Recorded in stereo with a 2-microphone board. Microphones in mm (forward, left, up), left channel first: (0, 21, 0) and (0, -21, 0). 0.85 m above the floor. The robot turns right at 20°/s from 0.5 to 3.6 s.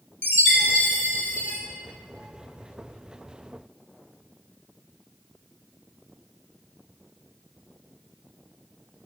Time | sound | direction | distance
0.2 | a chime | 55° left (ahead or behind) | 0.7 m